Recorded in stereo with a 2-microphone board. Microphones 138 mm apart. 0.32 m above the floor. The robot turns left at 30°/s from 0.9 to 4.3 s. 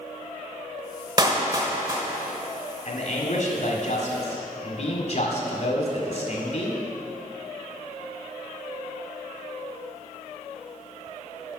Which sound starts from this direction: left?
A man speaking, at 2.9 s.